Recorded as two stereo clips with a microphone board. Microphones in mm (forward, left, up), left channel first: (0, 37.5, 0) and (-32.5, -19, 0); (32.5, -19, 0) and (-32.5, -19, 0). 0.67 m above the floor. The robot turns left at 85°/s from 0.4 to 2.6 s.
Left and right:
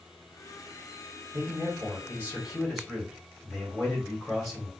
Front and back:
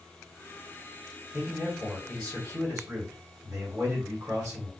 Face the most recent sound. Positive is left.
turn(degrees=150)